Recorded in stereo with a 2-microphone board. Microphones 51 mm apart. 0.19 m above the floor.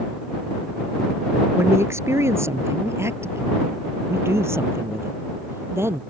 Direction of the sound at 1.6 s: 60° right (ahead or behind).